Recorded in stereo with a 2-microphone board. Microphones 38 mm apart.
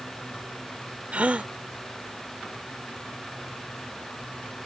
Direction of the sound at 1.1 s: 40° right (ahead or behind).